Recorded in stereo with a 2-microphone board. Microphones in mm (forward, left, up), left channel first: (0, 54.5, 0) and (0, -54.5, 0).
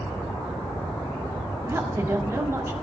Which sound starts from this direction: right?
A woman speaking, at 1.7 s.